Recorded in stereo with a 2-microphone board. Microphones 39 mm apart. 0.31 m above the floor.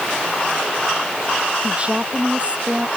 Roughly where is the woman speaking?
Right.